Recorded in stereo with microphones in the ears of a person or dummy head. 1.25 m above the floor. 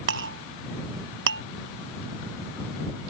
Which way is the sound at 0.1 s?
75° right (ahead or behind).